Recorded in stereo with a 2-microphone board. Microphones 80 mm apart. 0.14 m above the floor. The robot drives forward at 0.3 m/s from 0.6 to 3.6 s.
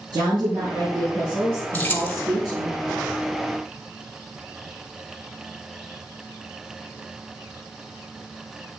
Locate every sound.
0.1 s a woman speaking: 60° right (ahead or behind), 3 m; by 2.7 s 55° right (ahead or behind), 3 m
1.7 s keys jangling: 20° left (ahead or behind), 0.9 m